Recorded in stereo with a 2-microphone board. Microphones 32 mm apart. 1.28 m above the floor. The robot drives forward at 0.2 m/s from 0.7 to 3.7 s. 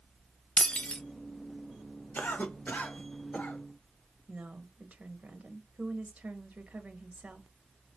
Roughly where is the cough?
Left.